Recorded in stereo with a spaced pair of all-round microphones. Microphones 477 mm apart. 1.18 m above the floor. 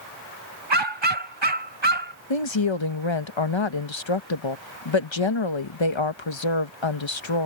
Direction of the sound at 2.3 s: 70° left (ahead or behind).